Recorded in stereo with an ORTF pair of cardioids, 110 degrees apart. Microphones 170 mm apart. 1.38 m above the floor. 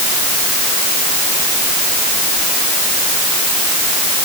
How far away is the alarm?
No alarm in this recording.